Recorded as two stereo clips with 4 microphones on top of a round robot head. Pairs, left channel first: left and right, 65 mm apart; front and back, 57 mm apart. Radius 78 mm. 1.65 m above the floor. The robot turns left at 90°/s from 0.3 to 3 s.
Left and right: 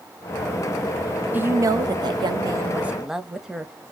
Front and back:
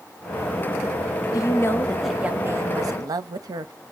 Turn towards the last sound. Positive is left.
turn(degrees=-175)